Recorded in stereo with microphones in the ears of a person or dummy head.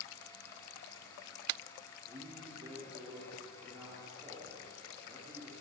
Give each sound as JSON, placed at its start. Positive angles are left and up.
{"t": 2.1, "sound": "a man speaking", "side_deg": -10, "distance_m": 3.5}